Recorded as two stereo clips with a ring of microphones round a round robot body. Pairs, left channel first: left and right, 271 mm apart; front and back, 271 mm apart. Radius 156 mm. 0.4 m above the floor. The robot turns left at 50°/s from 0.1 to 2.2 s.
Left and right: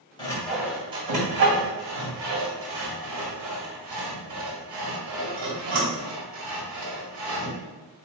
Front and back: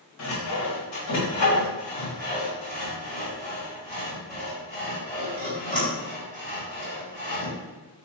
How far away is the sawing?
About 1.8 m.